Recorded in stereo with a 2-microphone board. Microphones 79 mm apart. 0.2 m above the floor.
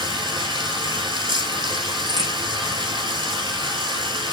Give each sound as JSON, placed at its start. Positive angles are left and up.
{"t": 0.0, "sound": "running water", "side_deg": -70, "distance_m": 2.0}
{"t": 2.1, "sound": "a crack", "side_deg": -60, "distance_m": 3.5}